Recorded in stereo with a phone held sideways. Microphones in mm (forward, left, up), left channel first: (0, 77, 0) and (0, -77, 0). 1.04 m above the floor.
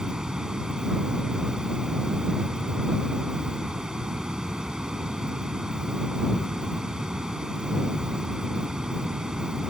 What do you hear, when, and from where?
0.0 s running water: 5° right (ahead or behind)